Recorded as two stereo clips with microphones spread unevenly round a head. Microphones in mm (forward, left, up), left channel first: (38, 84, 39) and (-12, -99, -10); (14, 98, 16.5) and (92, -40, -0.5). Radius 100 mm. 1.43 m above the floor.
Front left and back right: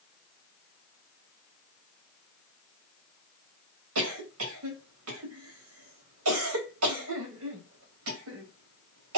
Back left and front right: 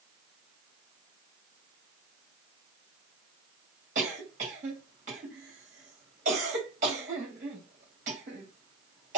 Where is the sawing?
I don't hear sawing.